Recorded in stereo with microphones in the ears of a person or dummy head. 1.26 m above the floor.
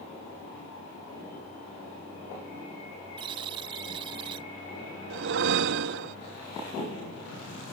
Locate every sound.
3.2 s a buzzer: 20° right (ahead or behind)
5.1 s a whoosh: 60° right (ahead or behind)